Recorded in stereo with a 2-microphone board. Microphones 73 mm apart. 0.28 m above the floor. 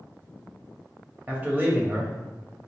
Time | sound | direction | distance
1.3 | a man speaking | 25° right (ahead or behind) | 0.9 m